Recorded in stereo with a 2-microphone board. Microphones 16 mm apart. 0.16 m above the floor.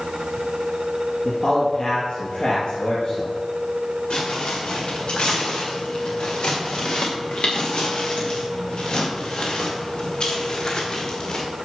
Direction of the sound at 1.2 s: 65° left (ahead or behind).